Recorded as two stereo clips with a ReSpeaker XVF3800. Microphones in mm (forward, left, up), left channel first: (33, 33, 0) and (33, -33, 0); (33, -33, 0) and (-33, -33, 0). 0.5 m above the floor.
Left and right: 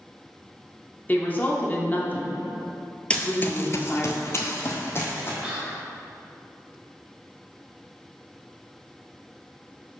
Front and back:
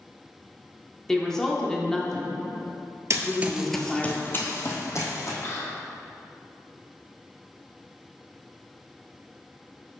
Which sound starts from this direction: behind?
Running footsteps, at 3.1 s.